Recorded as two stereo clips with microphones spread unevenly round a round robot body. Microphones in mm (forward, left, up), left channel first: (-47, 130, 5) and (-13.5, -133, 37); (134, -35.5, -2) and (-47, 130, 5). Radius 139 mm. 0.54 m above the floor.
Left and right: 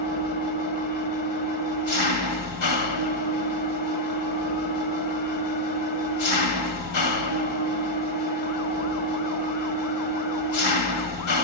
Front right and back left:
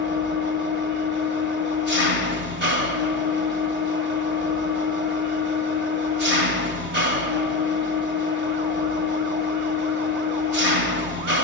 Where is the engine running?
90° left, 1.7 m.